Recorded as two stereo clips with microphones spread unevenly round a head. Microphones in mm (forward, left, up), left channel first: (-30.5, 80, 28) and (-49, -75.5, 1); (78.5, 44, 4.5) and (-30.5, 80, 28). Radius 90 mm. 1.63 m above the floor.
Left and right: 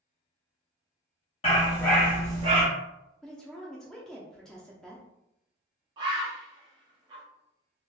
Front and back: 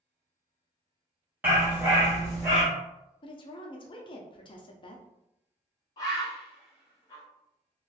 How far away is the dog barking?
About 1.4 m.